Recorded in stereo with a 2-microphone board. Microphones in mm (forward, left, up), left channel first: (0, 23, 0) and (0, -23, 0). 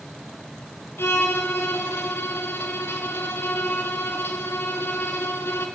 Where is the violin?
55° left (ahead or behind), 2.5 m.